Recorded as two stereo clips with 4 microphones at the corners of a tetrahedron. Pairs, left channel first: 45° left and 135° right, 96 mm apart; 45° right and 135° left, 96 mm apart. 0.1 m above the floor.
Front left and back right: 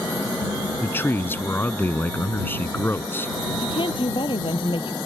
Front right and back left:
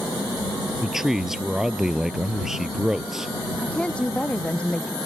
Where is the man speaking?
55° left.